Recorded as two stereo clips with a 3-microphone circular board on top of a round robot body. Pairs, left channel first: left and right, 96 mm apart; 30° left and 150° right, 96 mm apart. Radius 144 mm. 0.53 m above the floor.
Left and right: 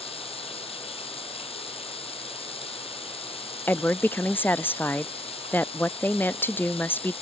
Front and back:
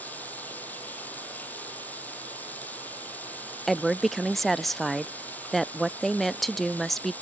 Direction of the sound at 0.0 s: 105° left.